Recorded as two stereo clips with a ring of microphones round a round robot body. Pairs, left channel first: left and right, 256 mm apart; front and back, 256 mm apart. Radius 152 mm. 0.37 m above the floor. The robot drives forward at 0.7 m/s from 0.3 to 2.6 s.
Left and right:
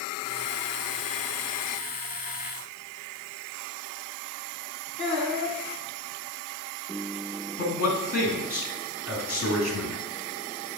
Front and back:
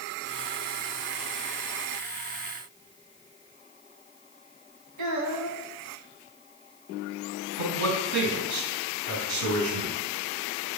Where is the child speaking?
175° left, 1.9 m.